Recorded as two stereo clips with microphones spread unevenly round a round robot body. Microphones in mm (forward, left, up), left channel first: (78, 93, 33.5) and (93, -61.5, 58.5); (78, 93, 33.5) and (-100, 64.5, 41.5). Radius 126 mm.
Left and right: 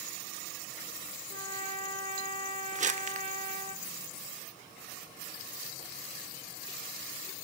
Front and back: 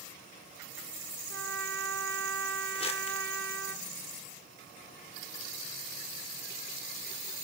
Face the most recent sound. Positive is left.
turn(degrees=-45)